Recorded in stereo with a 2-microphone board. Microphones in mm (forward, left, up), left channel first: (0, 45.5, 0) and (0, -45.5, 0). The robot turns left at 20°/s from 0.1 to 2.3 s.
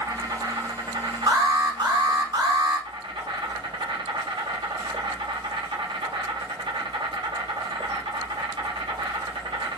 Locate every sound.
0.0 s an insect: 45° right, 1.0 m; by 9.8 s 90° right, 1.0 m
1.3 s an alarm: 55° right (ahead or behind), 3.5 m; by 2.9 s 75° right (ahead or behind), 3.5 m